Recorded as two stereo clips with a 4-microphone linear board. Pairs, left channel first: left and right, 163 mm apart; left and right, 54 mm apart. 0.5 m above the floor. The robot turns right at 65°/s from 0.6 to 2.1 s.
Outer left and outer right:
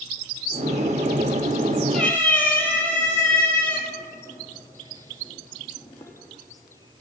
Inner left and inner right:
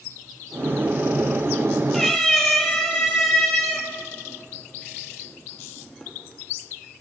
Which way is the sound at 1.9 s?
Centre (ahead or behind).